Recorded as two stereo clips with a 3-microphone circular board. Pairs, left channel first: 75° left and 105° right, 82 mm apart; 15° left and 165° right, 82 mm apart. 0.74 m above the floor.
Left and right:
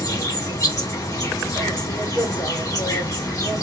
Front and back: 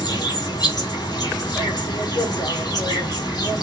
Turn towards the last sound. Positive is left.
turn(degrees=35)